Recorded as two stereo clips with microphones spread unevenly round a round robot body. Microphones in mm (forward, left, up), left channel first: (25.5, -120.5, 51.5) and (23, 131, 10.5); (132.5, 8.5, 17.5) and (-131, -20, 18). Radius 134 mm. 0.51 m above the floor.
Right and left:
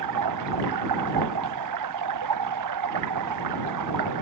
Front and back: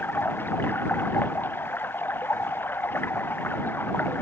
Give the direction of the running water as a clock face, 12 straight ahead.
9 o'clock.